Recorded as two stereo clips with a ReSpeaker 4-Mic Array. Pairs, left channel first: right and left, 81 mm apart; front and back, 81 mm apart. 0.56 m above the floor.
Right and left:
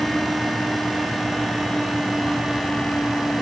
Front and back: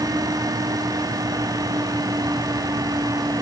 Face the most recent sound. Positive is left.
No sound to turn to.